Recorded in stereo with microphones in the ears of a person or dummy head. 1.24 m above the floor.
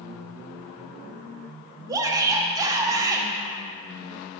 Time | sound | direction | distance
1.9 | a shout | 20° right (ahead or behind) | 0.8 m